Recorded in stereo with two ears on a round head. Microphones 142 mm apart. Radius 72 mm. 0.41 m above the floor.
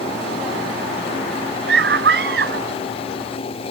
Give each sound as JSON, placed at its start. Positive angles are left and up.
{"t": 1.7, "sound": "a scream", "side_deg": -80}